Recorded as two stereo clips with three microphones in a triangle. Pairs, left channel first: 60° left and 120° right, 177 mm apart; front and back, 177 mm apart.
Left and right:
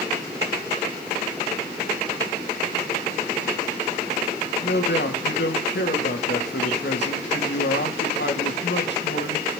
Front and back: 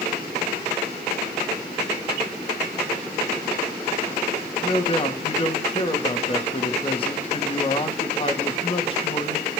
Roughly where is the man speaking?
Ahead left.